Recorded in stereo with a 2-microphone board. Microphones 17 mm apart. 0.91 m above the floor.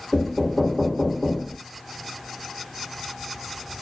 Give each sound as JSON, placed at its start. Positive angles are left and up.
{"t": 0.1, "sound": "knocking", "side_deg": 55, "distance_m": 0.9}